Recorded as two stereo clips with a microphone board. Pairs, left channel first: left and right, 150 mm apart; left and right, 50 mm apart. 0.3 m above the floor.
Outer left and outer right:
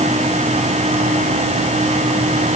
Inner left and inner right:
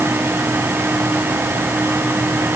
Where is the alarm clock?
No alarm clock in this recording.